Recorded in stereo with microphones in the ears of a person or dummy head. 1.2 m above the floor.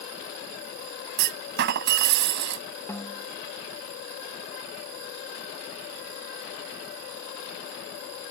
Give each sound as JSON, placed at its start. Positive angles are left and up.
{"t": 1.2, "sound": "a clunk", "side_deg": -55}
{"t": 2.9, "sound": "a snare drum", "side_deg": 15}